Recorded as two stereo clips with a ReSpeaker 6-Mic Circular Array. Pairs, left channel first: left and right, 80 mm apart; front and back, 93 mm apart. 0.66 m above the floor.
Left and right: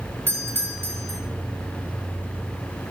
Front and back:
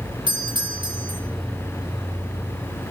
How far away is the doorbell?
About 4.5 m.